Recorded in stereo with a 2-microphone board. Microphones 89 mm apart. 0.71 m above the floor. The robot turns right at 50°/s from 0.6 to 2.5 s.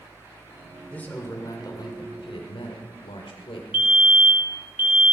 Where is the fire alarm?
20° right (ahead or behind), 1.4 m.